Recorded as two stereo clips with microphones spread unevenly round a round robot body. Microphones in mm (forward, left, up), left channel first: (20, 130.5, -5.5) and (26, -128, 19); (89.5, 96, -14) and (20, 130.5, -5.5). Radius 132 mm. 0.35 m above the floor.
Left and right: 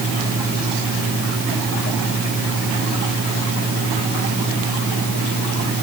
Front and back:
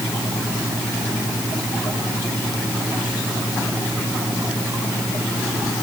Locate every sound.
Only background noise.